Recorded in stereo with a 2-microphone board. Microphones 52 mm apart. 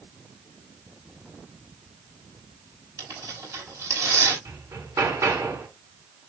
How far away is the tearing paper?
About 5.5 m.